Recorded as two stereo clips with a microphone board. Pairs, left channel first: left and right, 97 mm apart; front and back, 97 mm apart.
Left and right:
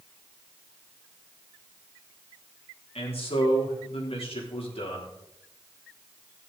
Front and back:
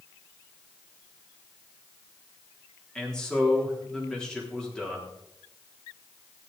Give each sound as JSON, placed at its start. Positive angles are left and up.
{"t": 3.0, "sound": "a man speaking", "azimuth_deg": 85, "distance_m": 3.5}